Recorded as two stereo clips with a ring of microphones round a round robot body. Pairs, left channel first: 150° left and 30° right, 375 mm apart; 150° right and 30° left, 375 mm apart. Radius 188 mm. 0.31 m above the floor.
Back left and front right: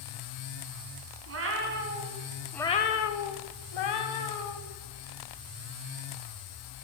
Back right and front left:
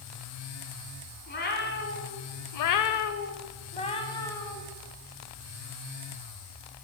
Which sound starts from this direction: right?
A cat meowing, at 1.3 s.